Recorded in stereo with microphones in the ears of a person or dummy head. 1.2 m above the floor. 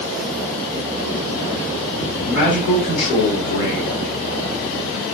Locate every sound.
2.2 s a man speaking: 35° left (ahead or behind), 3 m